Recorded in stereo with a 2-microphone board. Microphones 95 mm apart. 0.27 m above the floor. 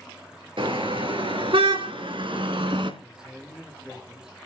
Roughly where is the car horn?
Right.